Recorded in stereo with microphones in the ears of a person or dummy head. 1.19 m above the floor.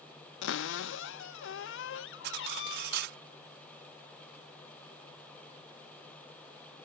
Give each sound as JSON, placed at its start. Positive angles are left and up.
{"t": 0.4, "sound": "a cupboard door", "side_deg": 60}
{"t": 2.2, "sound": "cutlery clinking", "side_deg": -60}